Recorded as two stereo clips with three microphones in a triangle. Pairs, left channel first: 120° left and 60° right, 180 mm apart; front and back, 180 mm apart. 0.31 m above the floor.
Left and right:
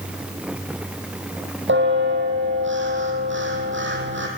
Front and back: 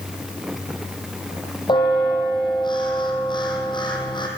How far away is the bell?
About 4 m.